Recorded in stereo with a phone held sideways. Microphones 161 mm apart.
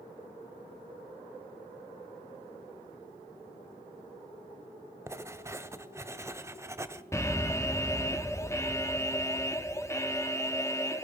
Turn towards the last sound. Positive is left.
turn(degrees=15)  # may be behind; listen again after turning